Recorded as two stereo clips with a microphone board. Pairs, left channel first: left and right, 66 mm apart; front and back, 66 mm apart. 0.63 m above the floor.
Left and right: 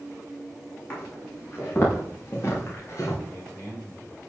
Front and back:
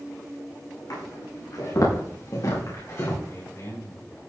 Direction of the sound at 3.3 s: 45° left.